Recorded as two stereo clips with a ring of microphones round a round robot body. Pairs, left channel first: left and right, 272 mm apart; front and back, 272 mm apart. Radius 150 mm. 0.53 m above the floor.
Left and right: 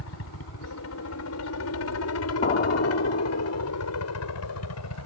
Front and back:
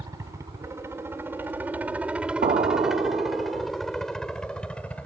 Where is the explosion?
130° left.